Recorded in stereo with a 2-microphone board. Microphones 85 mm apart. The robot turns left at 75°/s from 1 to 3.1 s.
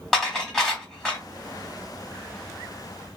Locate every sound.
0.1 s dishes clattering: centre (ahead or behind), 1.3 m; by 1.2 s 15° left (ahead or behind), 1.3 m